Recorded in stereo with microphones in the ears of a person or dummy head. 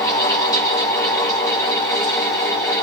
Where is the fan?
20° left (ahead or behind), 9 m.